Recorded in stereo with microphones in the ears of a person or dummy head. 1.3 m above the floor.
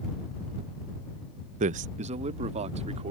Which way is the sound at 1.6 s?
35° right (ahead or behind).